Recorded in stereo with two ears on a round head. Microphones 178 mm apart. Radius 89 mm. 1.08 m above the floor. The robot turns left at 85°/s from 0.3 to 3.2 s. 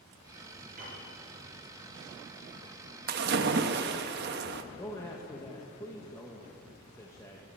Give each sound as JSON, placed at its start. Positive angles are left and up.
{"t": 0.8, "sound": "a piano", "side_deg": -40, "distance_m": 6.0}
{"t": 3.1, "sound": "a splash", "side_deg": -45, "distance_m": 0.8}
{"t": 4.8, "sound": "a man speaking", "side_deg": 15, "distance_m": 1.1}